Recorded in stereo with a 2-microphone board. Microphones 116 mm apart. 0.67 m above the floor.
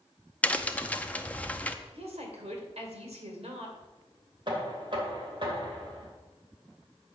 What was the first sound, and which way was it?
A crack, 10° left (ahead or behind).